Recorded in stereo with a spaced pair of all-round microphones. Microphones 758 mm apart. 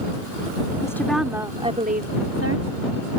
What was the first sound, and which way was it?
A woman speaking, 5° left (ahead or behind).